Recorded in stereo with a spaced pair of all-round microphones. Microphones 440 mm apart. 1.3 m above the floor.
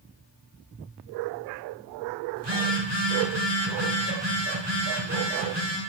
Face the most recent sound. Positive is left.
turn(degrees=-65)  # may be behind; listen again after turning